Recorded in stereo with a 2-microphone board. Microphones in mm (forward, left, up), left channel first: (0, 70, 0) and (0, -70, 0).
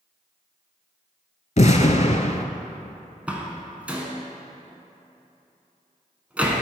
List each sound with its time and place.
1.6 s an explosion: 55° left (ahead or behind), 0.5 m
3.3 s a door slam: 10° right (ahead or behind), 1.3 m